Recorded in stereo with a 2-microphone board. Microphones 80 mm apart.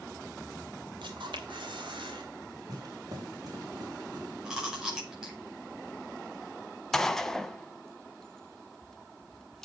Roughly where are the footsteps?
Right.